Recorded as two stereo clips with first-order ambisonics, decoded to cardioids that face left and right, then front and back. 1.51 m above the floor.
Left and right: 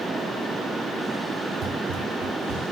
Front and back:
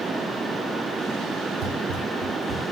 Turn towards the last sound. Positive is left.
turn(degrees=-115)